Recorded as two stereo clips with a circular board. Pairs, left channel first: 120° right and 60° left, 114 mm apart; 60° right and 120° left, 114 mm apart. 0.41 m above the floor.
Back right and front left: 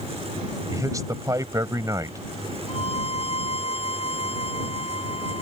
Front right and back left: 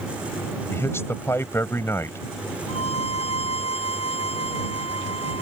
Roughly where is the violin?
Right.